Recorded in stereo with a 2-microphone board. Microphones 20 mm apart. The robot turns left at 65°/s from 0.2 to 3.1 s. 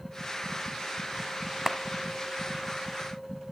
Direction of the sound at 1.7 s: 20° right (ahead or behind).